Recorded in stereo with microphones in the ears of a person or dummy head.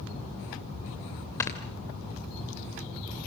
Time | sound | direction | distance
1.4 | snoring | 15° left (ahead or behind) | 2 m